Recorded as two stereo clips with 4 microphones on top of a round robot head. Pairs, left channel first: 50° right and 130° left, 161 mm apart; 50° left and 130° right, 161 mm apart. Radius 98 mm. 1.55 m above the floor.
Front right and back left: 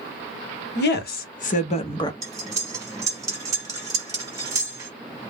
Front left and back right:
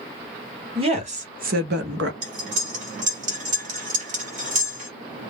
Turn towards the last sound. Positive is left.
turn(degrees=-160)